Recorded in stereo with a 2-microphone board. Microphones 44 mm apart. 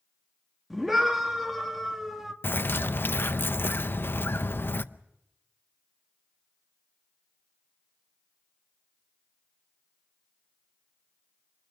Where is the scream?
Centre (ahead or behind), 1.8 m.